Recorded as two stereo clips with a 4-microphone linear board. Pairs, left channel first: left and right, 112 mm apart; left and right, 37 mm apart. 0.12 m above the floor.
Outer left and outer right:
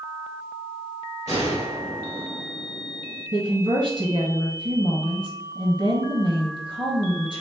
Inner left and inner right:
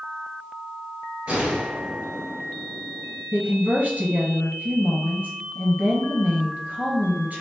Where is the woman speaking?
45° right (ahead or behind), 1.6 m.